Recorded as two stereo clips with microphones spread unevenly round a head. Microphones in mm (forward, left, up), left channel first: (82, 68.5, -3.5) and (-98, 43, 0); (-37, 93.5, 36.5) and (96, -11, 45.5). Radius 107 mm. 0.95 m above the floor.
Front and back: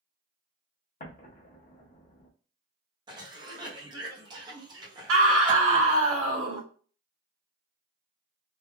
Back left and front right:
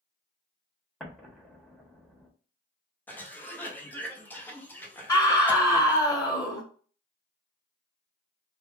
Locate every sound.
1.0 s an explosion: 50° left, 1.0 m
3.1 s a cough: 170° right, 0.8 m
5.1 s a scream: 145° right, 1.4 m